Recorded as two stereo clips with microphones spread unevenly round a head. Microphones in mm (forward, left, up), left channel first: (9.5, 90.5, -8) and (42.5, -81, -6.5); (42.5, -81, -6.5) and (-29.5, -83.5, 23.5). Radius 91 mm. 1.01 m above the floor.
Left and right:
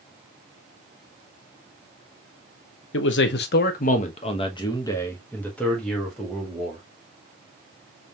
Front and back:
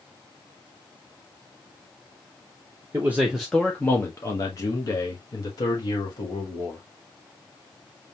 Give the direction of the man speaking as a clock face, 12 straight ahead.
9 o'clock.